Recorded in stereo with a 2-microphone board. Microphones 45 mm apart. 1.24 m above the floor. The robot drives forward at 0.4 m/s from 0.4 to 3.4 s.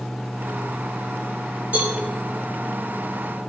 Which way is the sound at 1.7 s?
40° right (ahead or behind).